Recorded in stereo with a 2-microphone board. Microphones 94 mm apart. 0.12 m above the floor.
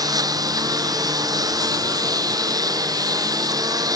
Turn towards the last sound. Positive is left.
turn(degrees=-40)  # may be behind; listen again after turning